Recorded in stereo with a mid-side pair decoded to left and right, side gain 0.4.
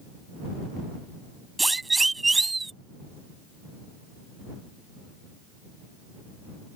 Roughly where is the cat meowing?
I don't hear a cat meowing.